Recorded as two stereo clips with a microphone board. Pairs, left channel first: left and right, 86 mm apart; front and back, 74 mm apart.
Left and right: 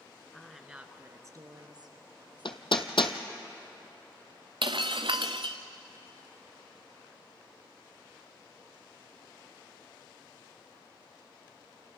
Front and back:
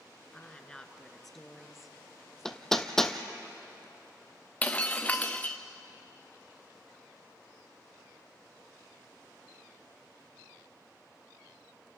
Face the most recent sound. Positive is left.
turn(degrees=-70)